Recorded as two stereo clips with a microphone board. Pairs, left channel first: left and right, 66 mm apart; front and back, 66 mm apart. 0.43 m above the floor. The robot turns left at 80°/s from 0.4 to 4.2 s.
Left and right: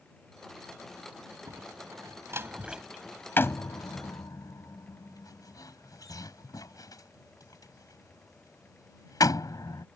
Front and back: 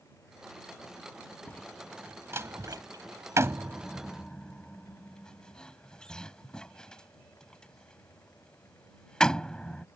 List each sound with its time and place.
1.5 s a door slam: 65° right; by 9.8 s 80° left